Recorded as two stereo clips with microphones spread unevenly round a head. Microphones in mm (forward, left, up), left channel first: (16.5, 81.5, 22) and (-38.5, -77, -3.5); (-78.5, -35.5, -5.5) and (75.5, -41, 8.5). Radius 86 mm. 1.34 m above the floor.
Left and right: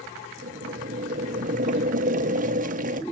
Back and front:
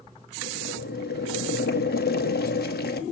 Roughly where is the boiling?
Behind right.